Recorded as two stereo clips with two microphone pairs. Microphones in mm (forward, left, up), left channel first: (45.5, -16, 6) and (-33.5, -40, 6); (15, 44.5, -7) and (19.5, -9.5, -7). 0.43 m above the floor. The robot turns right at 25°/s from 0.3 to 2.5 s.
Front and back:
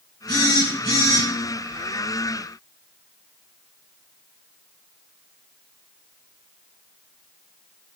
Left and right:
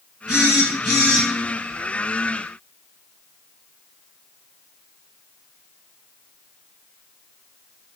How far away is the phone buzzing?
About 3.5 m.